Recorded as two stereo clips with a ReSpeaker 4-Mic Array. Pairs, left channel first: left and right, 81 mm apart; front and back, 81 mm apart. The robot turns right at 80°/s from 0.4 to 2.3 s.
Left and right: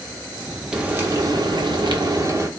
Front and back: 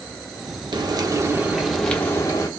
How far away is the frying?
About 0.9 m.